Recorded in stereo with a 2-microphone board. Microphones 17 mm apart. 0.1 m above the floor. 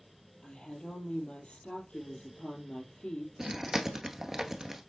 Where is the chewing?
25° right (ahead or behind), 1.0 m.